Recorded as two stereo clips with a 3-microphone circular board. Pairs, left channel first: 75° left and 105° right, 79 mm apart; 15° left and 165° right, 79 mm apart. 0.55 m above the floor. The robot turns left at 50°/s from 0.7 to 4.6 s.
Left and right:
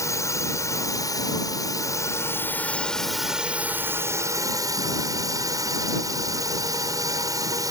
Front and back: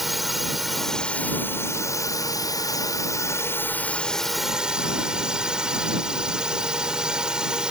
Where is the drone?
105° left; by 7.7 s 90° right.